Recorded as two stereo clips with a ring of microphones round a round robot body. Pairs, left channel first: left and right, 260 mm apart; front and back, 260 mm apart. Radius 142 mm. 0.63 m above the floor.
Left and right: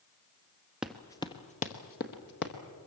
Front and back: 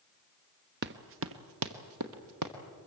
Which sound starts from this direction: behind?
Running footsteps, at 0.8 s.